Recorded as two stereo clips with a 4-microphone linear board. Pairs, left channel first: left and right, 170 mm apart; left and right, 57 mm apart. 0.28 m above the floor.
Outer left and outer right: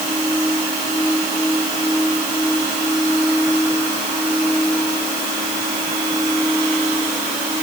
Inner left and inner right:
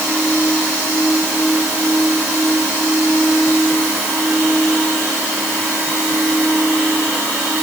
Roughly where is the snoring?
No snoring in this recording.